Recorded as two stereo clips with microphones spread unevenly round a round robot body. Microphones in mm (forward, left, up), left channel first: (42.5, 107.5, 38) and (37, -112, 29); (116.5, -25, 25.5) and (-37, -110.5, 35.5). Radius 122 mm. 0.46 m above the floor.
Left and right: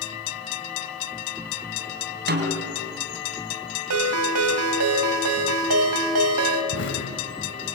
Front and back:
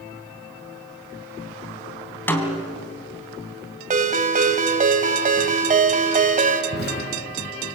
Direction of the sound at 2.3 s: 50° right.